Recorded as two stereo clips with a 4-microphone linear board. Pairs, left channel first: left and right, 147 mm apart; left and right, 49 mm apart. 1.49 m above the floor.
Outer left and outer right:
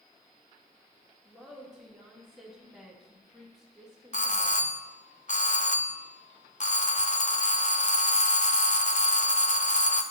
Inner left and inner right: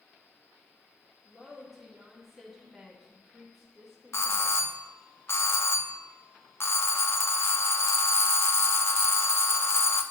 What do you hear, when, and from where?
1.2 s a woman speaking: centre (ahead or behind), 3 m
4.1 s a doorbell: 60° left (ahead or behind), 0.9 m